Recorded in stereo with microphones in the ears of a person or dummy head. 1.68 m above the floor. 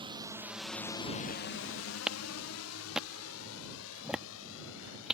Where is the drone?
25° right (ahead or behind); by 5.1 s 70° left (ahead or behind).